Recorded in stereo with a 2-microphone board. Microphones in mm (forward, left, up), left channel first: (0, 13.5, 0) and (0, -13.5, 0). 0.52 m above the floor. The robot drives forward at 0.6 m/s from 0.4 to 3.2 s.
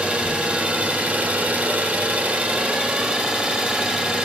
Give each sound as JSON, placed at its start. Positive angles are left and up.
{"t": 0.0, "sound": "an engine running", "side_deg": -50, "distance_m": 1.1}